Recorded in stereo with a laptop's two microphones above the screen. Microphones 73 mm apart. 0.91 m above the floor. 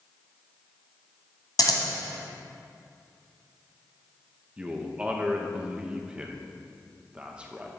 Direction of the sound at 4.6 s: 15° right (ahead or behind).